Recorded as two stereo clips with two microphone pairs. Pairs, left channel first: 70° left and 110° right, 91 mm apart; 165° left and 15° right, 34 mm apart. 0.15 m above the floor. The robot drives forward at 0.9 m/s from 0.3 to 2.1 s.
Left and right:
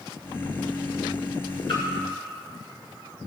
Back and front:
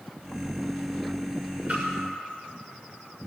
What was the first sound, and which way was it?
A splash, 55° left.